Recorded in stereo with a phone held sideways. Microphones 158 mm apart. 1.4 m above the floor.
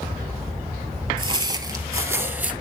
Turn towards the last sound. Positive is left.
turn(degrees=-10)  # may be behind; listen again after turning